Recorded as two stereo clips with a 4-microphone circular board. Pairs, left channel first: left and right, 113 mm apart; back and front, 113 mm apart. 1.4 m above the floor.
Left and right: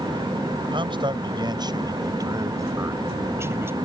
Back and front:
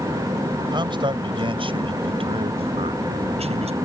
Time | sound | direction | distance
0.7 | a man speaking | 45° right | ?